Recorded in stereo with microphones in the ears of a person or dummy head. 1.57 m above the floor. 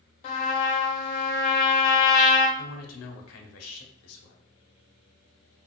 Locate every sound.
0.2 s a trumpet: 35° left (ahead or behind), 0.6 m
2.6 s a man speaking: 80° left, 0.7 m